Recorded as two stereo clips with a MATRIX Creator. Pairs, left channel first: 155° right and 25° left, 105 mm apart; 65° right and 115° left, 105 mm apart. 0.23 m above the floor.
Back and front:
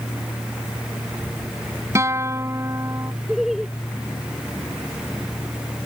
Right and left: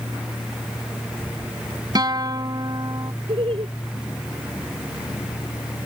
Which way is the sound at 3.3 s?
110° left.